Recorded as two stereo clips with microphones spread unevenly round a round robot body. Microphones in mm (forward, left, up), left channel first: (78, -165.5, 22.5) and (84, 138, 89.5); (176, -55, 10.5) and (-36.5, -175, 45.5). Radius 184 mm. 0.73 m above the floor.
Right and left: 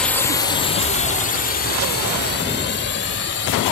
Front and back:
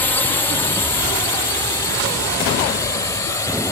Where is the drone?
30° right; by 3.7 s 50° right.